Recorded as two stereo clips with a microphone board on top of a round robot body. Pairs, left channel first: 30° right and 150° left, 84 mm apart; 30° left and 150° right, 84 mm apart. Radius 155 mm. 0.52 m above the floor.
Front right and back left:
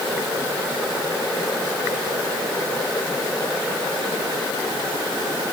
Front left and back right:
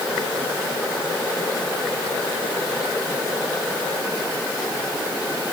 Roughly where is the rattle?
No rattle in this recording.